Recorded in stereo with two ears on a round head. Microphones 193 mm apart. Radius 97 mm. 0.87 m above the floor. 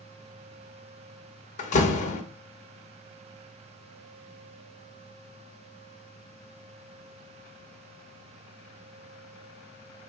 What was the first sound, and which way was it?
A door slam, 35° left (ahead or behind).